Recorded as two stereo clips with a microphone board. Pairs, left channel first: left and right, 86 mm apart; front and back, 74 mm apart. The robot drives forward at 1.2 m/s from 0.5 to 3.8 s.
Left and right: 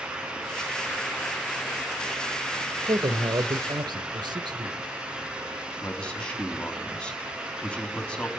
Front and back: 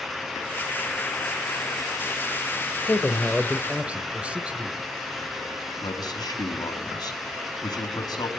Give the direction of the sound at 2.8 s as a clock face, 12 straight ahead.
2 o'clock.